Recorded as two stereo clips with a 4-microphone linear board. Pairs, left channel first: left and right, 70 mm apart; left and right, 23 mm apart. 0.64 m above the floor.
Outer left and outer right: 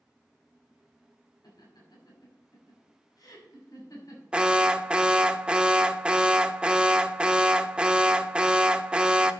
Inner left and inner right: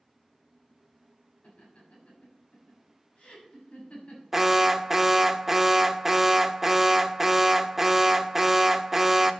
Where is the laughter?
70° left (ahead or behind), 5 m; by 4.2 s 50° left (ahead or behind), 5.5 m.